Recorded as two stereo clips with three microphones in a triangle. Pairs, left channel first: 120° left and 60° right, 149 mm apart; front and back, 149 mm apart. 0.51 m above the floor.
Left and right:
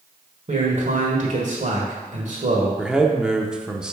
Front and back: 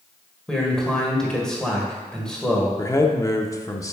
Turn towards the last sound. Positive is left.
turn(degrees=15)